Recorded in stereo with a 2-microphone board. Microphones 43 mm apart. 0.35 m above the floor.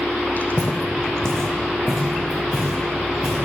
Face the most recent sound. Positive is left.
turn(degrees=-5)  # may be behind; listen again after turning